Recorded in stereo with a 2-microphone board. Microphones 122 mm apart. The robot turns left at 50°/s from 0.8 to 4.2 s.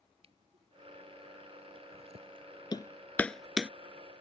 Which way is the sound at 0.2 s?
55° right (ahead or behind).